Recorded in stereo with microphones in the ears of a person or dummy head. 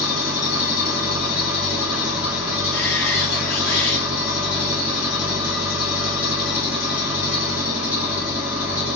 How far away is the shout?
About 3 m.